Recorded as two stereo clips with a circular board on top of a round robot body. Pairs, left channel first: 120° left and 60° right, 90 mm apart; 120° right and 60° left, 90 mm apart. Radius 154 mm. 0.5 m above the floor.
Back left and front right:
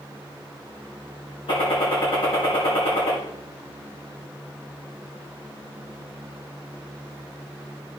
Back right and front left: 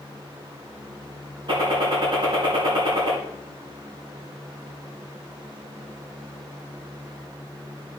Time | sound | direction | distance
1.5 | a gunshot | 95° left | 3.5 m